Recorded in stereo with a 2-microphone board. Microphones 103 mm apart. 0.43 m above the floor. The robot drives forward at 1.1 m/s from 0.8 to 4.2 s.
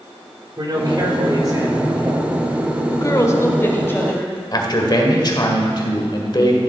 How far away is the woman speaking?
About 1.2 m.